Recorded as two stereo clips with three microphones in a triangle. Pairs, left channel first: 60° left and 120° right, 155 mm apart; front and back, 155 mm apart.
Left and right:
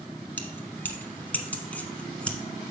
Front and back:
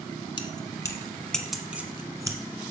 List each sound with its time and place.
0.4 s keys jangling: 10° right, 1.0 m; by 2.4 s 135° left, 1.1 m